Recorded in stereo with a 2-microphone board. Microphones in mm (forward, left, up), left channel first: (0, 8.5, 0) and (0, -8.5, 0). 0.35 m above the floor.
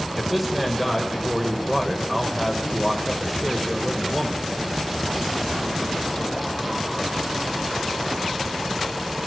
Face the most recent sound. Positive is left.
turn(degrees=-5)  # may be behind; listen again after turning